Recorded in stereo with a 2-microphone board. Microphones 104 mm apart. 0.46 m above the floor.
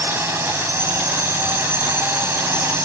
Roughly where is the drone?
Right.